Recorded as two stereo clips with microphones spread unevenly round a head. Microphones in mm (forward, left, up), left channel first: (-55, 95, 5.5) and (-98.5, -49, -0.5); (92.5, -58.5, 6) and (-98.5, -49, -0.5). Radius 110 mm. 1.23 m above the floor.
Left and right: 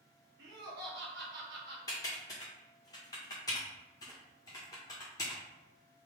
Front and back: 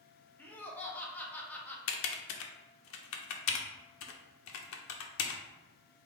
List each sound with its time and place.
0.4 s laughter: 85° right, 1.1 m
1.9 s typing on a keyboard: straight ahead, 0.5 m